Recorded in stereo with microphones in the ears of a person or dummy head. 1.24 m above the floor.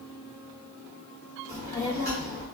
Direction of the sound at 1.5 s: 10° left (ahead or behind).